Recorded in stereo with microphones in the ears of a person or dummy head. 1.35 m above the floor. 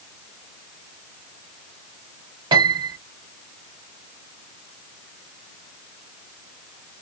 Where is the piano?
30° right (ahead or behind), 1.1 m.